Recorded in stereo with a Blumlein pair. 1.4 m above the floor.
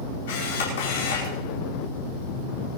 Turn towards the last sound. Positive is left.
turn(degrees=55)